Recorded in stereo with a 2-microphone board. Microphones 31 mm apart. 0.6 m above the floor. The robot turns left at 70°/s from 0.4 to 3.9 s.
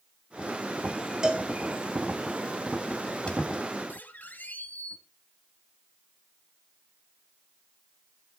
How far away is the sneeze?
No sneeze in this recording.